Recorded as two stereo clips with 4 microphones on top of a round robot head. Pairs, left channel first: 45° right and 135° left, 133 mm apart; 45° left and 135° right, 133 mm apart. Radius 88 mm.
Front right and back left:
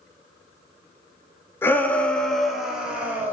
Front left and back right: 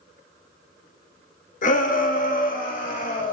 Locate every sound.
1.6 s a shout: 30° left, 2 m; by 3.3 s 55° left, 3 m